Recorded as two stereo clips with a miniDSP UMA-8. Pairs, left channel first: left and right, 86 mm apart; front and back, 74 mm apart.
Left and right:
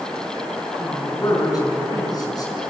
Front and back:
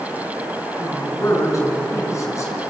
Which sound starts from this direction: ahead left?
A man speaking, at 0.8 s.